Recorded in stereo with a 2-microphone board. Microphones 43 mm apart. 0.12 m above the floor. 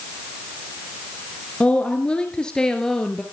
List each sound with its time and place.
1.6 s a woman speaking: 30° left (ahead or behind), 2 m; by 3.2 s 10° left (ahead or behind), 2.5 m